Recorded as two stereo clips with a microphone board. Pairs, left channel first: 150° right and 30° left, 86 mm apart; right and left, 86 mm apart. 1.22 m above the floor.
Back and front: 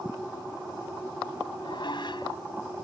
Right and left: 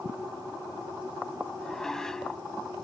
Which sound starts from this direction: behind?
Dishes clattering, at 1.6 s.